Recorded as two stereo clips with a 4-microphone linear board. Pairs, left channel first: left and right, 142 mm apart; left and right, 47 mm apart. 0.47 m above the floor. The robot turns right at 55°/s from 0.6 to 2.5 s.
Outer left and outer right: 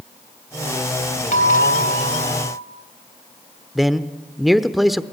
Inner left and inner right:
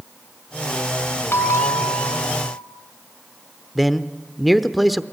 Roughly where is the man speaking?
Centre.